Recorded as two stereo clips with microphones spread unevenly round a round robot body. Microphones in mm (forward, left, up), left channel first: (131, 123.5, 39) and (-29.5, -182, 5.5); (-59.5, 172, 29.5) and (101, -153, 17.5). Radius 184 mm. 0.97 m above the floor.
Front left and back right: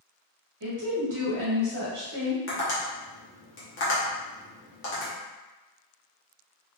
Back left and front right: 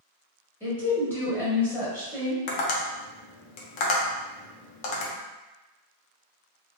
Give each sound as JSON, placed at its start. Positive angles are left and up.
{"t": 0.6, "sound": "a woman speaking", "azimuth_deg": -160, "distance_m": 1.6}
{"t": 2.5, "sound": "tapping", "azimuth_deg": 120, "distance_m": 0.7}